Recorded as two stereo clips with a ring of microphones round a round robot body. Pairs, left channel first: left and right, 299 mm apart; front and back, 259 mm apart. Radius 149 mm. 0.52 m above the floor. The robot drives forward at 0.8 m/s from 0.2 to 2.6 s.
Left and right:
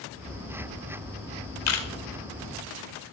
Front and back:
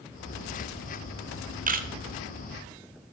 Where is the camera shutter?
120° left, 1.6 m; by 1.9 s 125° left, 1.7 m.